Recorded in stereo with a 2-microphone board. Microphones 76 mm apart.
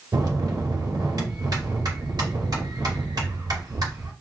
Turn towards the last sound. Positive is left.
turn(degrees=-60)  # may be behind; listen again after turning